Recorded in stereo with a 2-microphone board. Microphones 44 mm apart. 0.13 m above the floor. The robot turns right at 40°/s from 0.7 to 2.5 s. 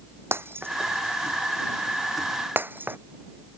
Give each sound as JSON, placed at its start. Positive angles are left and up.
{"t": 0.3, "sound": "breaking glass", "side_deg": -55}